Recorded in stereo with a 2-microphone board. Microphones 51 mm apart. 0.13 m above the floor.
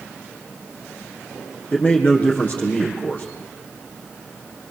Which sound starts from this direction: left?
A man speaking, at 1.7 s.